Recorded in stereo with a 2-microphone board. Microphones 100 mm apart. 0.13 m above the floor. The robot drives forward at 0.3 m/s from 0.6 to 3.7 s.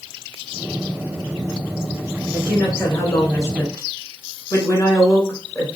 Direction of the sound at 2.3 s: 30° left (ahead or behind).